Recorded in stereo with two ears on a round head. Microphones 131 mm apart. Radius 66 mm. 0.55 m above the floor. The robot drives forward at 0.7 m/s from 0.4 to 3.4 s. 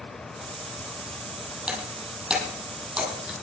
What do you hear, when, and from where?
1.7 s breaking glass: 5° right (ahead or behind), 8 m; by 3.3 s centre (ahead or behind), 9 m